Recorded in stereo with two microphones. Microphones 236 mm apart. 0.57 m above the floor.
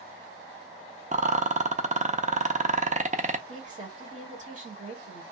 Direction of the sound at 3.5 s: 35° right (ahead or behind).